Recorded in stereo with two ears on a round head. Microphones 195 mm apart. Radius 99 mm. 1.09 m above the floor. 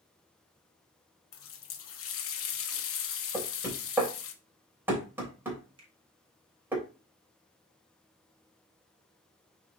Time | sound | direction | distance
1.3 | a running tap | 70° left (ahead or behind) | 0.9 m
3.3 | knocking | 10° right (ahead or behind) | 3 m
5.8 | a finger snap | 25° right (ahead or behind) | 3 m